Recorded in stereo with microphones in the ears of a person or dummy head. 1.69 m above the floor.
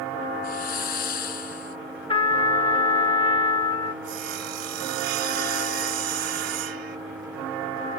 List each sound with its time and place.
0.4 s a hiss: 60° left (ahead or behind)
2.1 s a trumpet: 25° left (ahead or behind)
4.0 s sawing: 65° right (ahead or behind)